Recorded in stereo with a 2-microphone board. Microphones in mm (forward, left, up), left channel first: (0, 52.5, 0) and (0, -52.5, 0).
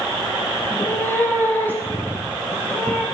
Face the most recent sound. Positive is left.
turn(degrees=15)  # may be behind; listen again after turning